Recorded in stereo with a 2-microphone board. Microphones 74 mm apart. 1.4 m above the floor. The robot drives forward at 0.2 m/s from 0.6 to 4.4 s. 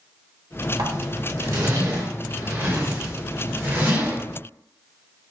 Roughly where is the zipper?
Right.